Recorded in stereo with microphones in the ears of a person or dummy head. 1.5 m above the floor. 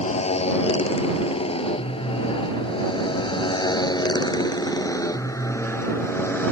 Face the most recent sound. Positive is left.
turn(degrees=10)  # may be behind; listen again after turning